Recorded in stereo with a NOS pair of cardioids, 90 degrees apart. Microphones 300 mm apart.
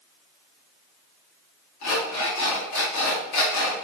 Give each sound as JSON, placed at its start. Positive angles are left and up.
{"t": 1.8, "sound": "an alarm clock", "azimuth_deg": 65, "distance_m": 1.2}